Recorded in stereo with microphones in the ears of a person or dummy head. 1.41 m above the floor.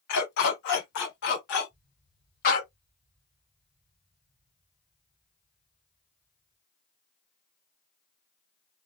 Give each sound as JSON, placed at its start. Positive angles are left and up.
{"t": 0.1, "sound": "a dog barking", "side_deg": 55, "distance_m": 2.0}
{"t": 1.7, "sound": "an explosion", "side_deg": 0, "distance_m": 0.8}